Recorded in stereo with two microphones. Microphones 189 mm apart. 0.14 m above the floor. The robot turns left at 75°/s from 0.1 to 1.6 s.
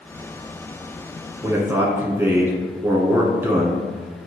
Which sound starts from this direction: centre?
A man speaking, at 1.4 s.